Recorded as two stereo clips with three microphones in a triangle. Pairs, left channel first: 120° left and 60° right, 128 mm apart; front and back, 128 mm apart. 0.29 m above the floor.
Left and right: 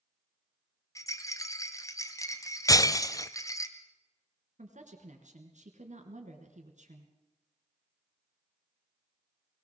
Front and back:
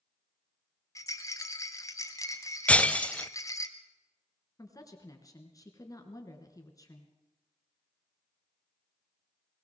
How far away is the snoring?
I don't hear snoring.